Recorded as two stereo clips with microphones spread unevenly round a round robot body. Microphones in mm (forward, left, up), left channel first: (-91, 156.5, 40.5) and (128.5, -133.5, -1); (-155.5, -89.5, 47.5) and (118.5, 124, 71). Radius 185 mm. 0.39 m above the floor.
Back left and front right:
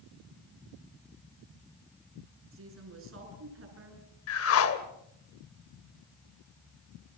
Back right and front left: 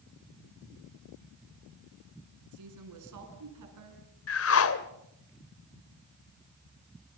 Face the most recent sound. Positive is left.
turn(degrees=180)